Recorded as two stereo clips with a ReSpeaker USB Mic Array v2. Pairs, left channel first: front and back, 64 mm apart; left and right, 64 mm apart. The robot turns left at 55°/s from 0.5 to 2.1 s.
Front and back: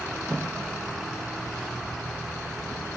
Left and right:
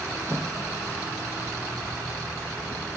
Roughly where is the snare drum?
Right.